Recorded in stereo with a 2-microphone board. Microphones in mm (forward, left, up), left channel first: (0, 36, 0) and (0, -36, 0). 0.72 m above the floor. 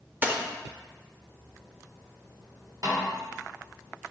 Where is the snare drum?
55° right (ahead or behind), 1.8 m.